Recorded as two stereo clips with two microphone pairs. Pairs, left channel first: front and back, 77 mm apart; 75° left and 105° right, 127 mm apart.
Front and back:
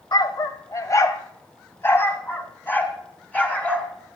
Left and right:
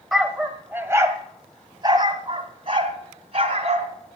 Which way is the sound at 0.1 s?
20° right.